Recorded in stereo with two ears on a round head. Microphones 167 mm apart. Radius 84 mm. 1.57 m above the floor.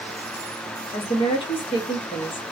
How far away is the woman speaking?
About 0.9 m.